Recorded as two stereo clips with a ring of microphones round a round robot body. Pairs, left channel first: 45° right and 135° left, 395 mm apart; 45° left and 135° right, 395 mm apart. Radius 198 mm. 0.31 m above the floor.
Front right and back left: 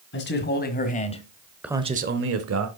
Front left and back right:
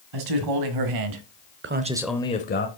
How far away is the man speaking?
About 2.5 m.